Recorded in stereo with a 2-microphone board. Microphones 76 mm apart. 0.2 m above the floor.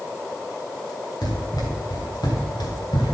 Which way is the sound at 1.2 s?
70° left (ahead or behind).